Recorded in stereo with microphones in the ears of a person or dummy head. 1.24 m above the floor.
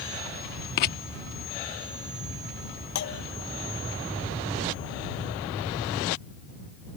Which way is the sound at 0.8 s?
50° left (ahead or behind).